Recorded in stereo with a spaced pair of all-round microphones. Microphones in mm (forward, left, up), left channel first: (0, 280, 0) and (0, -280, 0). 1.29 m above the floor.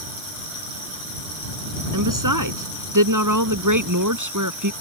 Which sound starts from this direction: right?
A woman speaking, at 1.9 s.